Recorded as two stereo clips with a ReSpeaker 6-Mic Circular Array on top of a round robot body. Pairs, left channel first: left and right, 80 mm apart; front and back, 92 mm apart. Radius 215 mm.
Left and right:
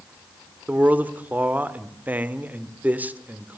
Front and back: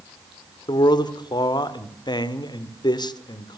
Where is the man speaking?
25° right, 2 m.